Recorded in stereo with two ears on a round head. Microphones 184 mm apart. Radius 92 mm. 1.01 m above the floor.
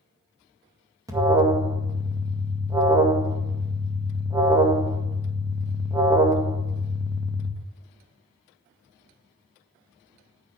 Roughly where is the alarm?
Centre.